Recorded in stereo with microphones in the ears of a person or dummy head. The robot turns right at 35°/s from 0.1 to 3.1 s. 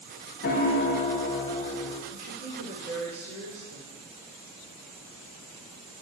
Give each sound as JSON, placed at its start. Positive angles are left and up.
{"t": 0.4, "sound": "a piano", "azimuth_deg": 135, "distance_m": 0.8}
{"t": 2.1, "sound": "a woman speaking", "azimuth_deg": -110, "distance_m": 3.0}